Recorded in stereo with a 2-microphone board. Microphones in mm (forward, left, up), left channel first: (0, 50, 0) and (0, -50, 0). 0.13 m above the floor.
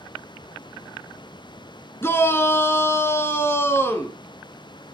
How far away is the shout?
About 1.2 m.